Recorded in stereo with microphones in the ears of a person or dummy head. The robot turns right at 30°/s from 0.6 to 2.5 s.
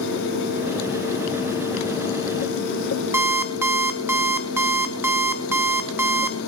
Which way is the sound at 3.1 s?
15° right (ahead or behind).